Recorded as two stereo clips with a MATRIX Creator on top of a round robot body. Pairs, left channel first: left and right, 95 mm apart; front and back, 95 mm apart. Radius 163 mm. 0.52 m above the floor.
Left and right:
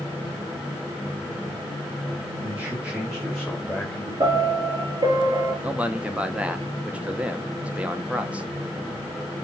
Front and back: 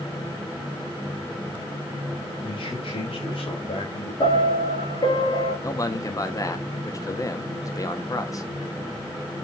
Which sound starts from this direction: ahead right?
A piano, at 4.2 s.